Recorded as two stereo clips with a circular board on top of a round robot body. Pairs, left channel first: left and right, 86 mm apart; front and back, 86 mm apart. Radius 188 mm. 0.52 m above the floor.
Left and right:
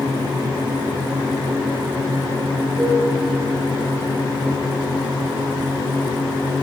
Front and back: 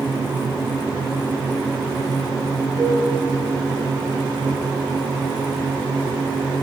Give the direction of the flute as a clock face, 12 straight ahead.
5 o'clock.